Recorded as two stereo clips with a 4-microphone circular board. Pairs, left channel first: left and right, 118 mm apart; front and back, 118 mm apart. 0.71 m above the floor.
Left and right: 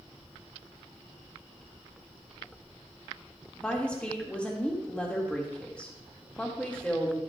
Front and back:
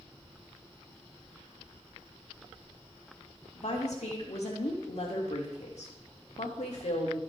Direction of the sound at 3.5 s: 10° left.